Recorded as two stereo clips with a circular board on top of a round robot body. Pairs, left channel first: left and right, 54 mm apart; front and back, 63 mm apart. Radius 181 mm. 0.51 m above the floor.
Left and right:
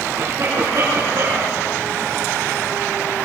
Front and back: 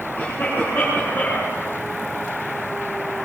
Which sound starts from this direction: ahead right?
A cough, at 0.2 s.